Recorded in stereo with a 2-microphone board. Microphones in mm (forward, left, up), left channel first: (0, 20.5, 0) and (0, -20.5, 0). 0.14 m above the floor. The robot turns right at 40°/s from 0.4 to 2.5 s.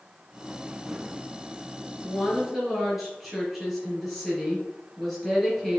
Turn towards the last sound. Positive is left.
turn(degrees=0)  # may be behind; listen again after turning